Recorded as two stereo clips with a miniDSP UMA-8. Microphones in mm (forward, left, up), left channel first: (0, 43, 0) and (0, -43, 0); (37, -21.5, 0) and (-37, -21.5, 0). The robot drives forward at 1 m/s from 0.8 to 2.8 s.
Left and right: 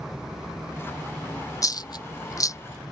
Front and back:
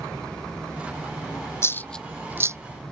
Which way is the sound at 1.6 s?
50° left.